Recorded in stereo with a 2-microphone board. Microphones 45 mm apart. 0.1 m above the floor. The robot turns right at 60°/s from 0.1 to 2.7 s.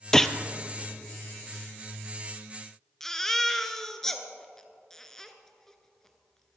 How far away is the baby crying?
About 1.1 m.